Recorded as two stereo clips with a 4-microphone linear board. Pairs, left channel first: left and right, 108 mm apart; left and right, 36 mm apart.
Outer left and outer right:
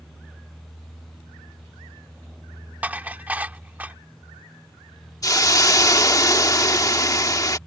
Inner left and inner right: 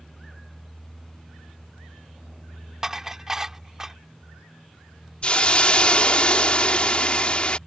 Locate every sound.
2.8 s dishes clattering: 15° right (ahead or behind)
5.2 s a hiss: 35° left (ahead or behind)